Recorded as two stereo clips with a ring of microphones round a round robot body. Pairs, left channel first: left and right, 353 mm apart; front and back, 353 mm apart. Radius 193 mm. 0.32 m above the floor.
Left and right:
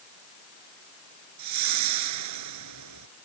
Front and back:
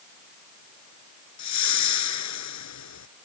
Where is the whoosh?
40° right.